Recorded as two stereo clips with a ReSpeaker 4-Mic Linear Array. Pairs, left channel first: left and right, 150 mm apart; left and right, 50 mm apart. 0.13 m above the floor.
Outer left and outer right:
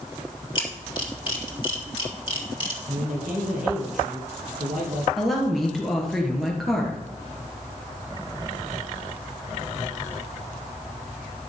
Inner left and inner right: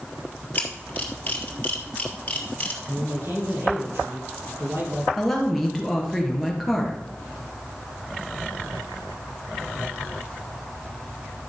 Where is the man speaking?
65° right (ahead or behind), 4 m.